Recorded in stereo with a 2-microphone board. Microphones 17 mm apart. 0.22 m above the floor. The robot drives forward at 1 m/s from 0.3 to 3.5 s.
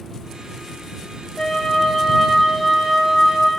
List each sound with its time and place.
1.4 s a flute: 30° left (ahead or behind), 1.1 m; by 3.5 s 10° left (ahead or behind), 3 m